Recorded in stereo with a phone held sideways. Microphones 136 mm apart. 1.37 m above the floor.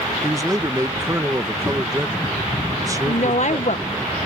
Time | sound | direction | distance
0.2 | a man speaking | 25° right (ahead or behind) | ?
3.0 | a woman speaking | 60° left (ahead or behind) | ?